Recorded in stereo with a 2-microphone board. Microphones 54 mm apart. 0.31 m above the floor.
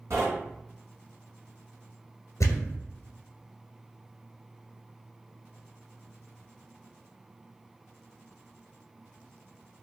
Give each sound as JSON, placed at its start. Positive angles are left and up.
{"t": 0.1, "sound": "knocking", "side_deg": -70, "distance_m": 1.7}
{"t": 2.4, "sound": "a thud", "side_deg": 80, "distance_m": 1.2}